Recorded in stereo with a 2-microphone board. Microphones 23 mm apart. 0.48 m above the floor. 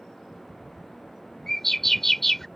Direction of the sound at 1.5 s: 10° left (ahead or behind).